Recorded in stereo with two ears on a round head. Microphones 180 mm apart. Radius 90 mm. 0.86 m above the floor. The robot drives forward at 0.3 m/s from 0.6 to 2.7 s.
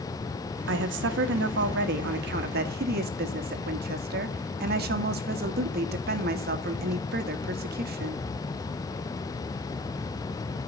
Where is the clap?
No clap in this recording.